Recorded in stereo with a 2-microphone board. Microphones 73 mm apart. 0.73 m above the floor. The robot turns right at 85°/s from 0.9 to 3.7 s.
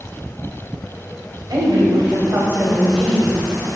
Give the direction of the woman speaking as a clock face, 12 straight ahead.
4 o'clock.